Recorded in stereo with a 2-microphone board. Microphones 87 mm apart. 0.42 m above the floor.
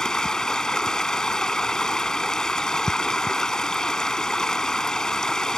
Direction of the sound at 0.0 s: 10° left (ahead or behind).